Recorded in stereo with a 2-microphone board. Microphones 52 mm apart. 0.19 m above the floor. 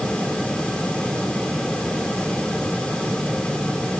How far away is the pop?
No pop in this recording.